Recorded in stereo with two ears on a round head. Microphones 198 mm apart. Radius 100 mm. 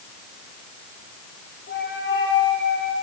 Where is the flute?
50° left (ahead or behind), 4 m.